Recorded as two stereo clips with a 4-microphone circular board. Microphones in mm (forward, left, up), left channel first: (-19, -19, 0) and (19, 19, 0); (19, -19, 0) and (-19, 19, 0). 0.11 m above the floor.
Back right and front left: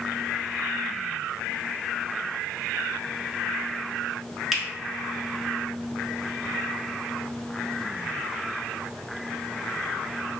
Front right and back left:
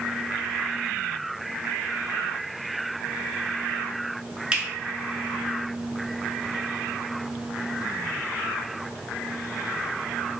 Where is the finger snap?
125° left, 1.0 m.